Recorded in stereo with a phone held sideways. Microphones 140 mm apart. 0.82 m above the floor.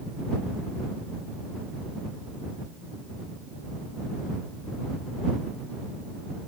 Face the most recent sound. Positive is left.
No sound to turn to.